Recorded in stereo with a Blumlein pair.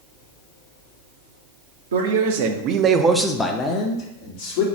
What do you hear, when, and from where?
1.9 s a man speaking: 65° right, 0.9 m; by 4.7 s 50° left, 1.1 m